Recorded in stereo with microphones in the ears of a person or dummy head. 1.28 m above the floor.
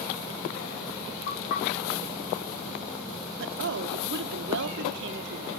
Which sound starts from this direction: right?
A woman speaking, at 3.4 s.